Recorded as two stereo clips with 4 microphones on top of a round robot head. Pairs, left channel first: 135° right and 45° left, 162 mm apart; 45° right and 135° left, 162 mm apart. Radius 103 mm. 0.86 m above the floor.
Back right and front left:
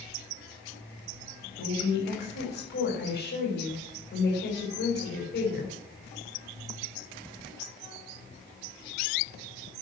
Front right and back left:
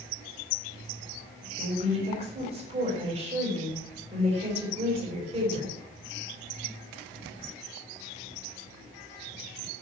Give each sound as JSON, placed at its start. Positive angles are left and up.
{"t": 1.6, "sound": "a woman speaking", "azimuth_deg": -165, "distance_m": 5.5}